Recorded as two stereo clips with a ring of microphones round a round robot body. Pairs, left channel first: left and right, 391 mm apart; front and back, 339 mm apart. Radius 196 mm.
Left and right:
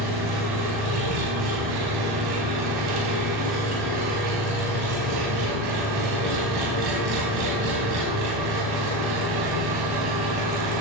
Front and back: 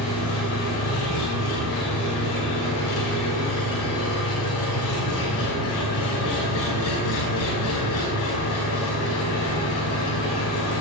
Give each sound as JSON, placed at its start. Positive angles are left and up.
{"t": 0.0, "sound": "an engine running", "azimuth_deg": -55, "distance_m": 4.5}